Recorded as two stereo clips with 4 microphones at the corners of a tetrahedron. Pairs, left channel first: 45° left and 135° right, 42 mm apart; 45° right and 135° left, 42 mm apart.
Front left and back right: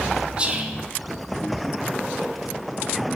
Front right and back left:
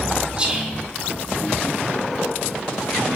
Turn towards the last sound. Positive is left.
turn(degrees=180)